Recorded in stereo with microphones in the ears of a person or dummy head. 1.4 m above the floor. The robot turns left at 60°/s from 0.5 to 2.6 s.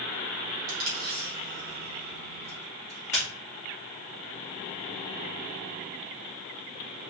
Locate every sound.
0.7 s tape being pulled: 80° right, 2 m; by 3.3 s 20° left (ahead or behind), 2 m